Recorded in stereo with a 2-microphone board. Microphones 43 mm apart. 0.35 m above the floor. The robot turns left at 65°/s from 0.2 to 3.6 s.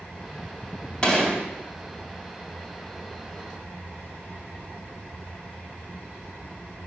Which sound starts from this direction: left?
A gunshot, at 1.0 s.